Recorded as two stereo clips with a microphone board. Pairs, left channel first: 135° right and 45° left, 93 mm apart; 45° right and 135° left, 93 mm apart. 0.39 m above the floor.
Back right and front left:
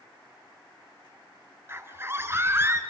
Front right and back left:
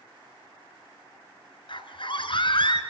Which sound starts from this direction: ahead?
A scream, at 1.7 s.